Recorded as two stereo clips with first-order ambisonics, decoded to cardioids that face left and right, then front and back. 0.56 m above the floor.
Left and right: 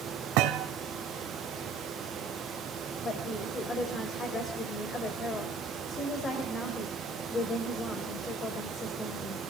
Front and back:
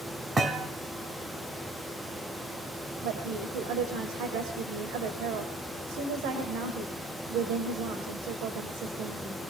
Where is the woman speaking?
160° left, 1.8 m.